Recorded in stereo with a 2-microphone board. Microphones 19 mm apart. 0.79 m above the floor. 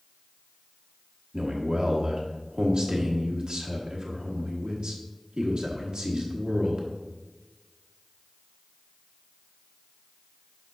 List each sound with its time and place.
1.3 s a man speaking: 55° right (ahead or behind), 1.2 m